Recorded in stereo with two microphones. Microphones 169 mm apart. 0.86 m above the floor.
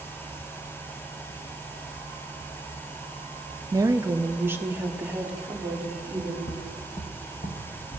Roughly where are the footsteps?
Left.